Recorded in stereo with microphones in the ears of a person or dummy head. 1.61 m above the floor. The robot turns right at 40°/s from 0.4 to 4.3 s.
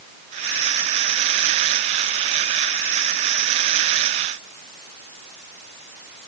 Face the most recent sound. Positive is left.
No sound to turn to.